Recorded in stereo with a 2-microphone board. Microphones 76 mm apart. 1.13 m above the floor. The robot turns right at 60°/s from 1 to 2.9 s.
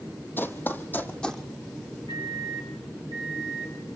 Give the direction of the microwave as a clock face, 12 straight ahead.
10 o'clock.